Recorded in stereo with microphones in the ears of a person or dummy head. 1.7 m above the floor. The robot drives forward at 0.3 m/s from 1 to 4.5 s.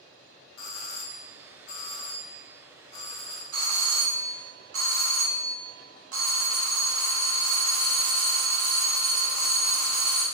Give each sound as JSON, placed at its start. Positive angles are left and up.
{"t": 0.6, "sound": "a doorbell", "side_deg": 75, "distance_m": 0.6}
{"t": 3.5, "sound": "a doorbell", "side_deg": -70, "distance_m": 1.2}